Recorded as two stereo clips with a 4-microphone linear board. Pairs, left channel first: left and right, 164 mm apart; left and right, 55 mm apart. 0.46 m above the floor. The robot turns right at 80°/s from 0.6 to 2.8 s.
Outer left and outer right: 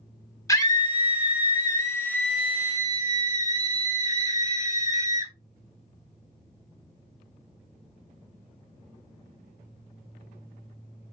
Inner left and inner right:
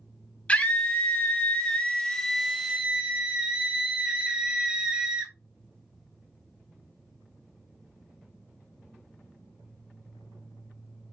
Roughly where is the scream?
Ahead left.